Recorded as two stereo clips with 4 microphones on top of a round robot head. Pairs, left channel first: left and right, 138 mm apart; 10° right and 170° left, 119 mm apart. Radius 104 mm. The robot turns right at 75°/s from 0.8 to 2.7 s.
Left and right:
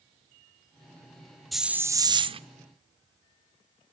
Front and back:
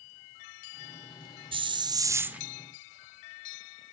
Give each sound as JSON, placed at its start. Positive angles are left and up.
{"t": 1.5, "sound": "a hiss", "azimuth_deg": 180, "distance_m": 0.6}